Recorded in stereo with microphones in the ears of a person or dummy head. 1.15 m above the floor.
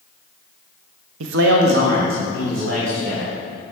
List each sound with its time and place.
1.2 s a man speaking: 75° right (ahead or behind), 0.6 m; by 3.4 s 40° right (ahead or behind), 3 m